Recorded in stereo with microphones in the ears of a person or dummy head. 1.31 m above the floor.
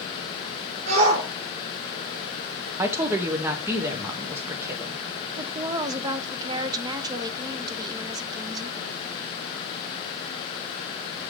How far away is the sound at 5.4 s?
About 0.6 m.